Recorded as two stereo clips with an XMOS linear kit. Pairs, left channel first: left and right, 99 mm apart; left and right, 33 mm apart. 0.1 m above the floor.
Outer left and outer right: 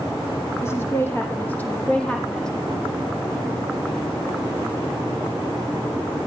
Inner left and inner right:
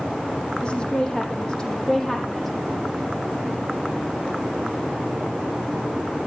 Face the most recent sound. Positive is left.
turn(degrees=5)  # may be behind; listen again after turning